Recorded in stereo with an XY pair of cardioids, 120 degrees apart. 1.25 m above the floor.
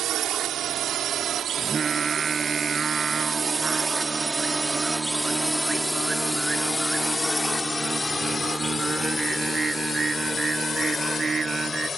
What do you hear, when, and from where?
0.0 s a drone: 65° right; by 12.0 s 35° left
1.6 s singing: 30° right